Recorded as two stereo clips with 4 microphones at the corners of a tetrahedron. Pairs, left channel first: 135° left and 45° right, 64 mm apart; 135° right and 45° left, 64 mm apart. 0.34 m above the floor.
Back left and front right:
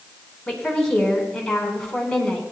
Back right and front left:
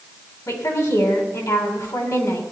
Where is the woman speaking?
145° right, 2.5 m.